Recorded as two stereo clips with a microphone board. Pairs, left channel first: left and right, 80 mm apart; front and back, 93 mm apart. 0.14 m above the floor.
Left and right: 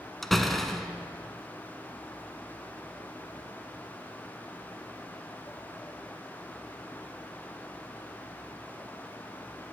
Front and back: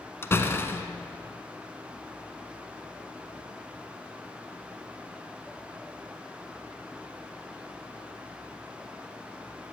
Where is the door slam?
10° left, 0.9 m.